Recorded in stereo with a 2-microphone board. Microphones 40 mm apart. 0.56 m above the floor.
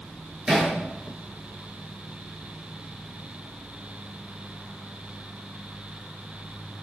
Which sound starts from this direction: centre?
Hammering, at 0.5 s.